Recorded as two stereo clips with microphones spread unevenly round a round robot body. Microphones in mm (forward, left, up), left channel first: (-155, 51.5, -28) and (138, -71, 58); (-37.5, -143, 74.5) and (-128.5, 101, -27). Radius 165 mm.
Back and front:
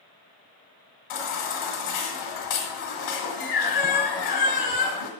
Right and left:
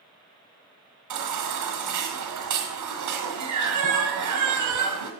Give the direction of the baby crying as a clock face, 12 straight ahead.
8 o'clock.